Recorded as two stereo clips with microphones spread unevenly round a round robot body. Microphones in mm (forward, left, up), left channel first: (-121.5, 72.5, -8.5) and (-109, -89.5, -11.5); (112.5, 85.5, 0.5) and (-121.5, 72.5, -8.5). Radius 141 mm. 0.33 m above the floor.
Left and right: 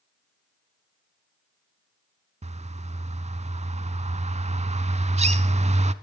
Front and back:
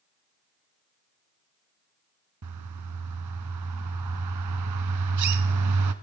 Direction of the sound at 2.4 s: 140° right.